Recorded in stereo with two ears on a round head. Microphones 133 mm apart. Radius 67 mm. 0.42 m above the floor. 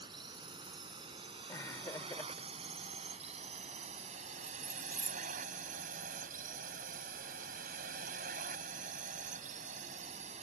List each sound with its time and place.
0.0 s a drone: 35° right (ahead or behind); by 10.4 s 45° right (ahead or behind)
1.5 s laughter: 20° left (ahead or behind)
4.4 s keys jangling: 20° right (ahead or behind)